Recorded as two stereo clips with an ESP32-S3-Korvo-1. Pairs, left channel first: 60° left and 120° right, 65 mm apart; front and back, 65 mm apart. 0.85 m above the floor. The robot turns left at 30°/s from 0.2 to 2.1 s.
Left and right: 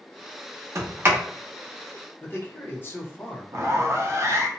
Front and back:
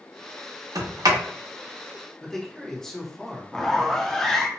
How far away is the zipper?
About 0.5 m.